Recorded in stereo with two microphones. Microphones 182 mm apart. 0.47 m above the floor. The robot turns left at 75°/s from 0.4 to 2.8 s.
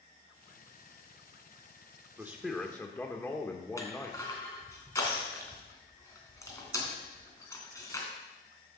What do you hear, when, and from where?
2.2 s a man speaking: 155° right, 1.3 m; by 4.3 s 160° left, 1.3 m
3.8 s crushing: 15° left (ahead or behind), 3 m